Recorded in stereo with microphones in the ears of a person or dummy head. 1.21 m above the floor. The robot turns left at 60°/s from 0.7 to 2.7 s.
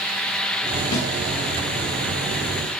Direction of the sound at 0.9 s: 60° left (ahead or behind).